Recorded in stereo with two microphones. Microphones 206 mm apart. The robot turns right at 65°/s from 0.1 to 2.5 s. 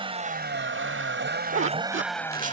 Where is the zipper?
80° right; by 2.5 s 35° right (ahead or behind).